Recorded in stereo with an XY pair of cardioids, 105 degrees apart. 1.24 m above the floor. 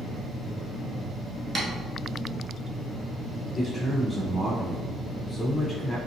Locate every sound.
1.6 s tapping: 30° right, 1.4 m
3.5 s a man speaking: 5° left, 0.6 m